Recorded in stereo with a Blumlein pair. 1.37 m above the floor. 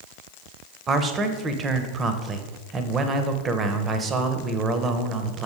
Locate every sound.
0.9 s a man speaking: 25° right, 0.9 m